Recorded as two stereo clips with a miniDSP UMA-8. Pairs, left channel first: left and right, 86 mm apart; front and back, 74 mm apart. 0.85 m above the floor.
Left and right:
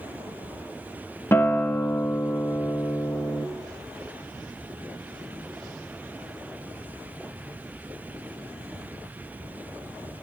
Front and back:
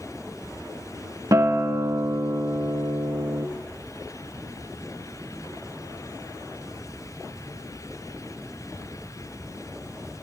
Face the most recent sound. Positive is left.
turn(degrees=145)